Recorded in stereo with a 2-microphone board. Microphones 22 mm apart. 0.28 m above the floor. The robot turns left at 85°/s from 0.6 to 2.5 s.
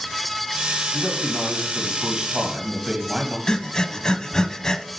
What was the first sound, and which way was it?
A man speaking, 15° left.